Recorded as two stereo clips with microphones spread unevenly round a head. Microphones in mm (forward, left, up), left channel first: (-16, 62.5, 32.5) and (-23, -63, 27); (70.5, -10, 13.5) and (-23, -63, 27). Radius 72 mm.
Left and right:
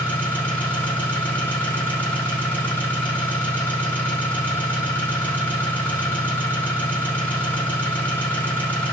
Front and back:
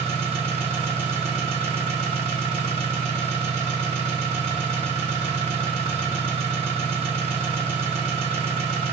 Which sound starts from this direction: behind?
An engine running, at 0.0 s.